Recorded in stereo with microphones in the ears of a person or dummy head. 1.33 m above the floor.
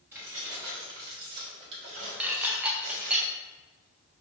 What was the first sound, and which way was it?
Keys jangling, 10° right (ahead or behind).